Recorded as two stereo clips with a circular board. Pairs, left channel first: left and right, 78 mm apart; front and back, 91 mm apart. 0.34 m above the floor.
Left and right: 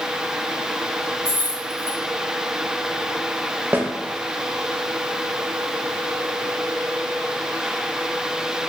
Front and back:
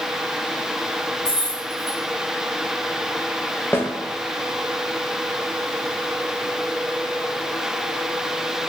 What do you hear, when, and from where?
1.2 s keys jangling: 80° right, 1.6 m
3.7 s a snare drum: 50° right, 0.6 m